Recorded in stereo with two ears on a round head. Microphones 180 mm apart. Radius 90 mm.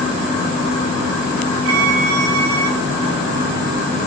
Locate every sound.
1.6 s a violin: 75° right (ahead or behind), 1.8 m